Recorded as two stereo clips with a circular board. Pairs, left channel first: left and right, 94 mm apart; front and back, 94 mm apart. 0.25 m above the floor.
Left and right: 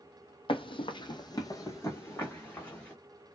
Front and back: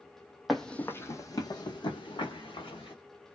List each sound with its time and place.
0.5 s running footsteps: 90° left, 0.5 m; by 2.9 s 15° left, 1.4 m